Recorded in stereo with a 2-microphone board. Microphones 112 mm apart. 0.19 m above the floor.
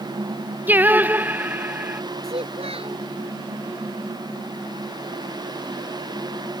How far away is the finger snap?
I don't hear a finger snap.